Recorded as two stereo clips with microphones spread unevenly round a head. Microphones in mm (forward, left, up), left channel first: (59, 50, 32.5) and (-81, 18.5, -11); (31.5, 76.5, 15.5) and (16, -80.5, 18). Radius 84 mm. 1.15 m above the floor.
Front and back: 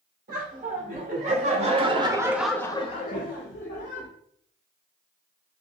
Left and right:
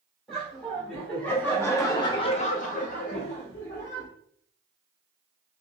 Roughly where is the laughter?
Behind.